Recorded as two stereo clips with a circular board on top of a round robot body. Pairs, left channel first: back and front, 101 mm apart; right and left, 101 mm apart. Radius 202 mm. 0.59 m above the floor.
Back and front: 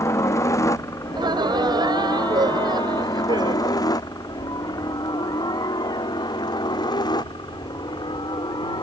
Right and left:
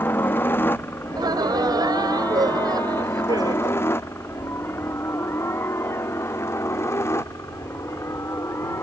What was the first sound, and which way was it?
A helicopter, 145° right.